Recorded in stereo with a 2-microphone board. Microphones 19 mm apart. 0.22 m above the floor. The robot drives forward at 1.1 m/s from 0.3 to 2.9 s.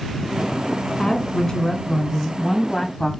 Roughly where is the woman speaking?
Left.